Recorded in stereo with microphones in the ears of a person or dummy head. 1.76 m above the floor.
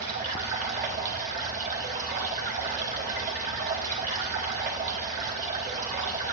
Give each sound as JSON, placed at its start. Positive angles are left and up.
{"t": 0.0, "sound": "running water", "side_deg": -40, "distance_m": 1.2}